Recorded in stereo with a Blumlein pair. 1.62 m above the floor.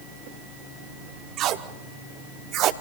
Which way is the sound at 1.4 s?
35° right.